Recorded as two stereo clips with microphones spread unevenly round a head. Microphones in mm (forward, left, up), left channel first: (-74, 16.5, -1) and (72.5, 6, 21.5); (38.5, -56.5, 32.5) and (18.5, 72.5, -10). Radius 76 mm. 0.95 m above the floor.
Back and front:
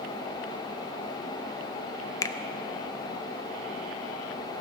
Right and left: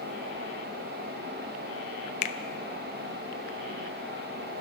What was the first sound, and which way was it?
A finger snap, 125° right.